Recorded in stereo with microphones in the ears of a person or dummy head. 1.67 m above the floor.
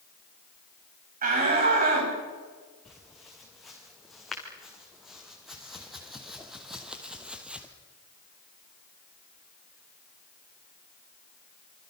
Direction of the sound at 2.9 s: Centre (ahead or behind).